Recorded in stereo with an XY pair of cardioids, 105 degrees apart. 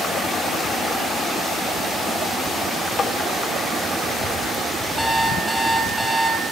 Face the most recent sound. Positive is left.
turn(degrees=-5)